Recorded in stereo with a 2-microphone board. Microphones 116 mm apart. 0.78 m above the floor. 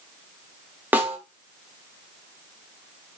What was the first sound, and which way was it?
A snare drum, 15° right (ahead or behind).